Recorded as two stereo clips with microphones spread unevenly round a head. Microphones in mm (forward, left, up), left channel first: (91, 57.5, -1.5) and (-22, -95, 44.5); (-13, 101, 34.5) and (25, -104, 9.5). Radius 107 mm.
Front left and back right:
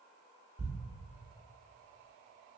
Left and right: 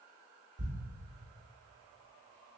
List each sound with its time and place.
0.6 s a thud: 105° right, 0.9 m